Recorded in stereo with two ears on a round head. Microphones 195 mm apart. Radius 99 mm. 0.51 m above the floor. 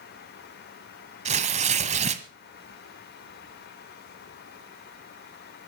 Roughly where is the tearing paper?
Right.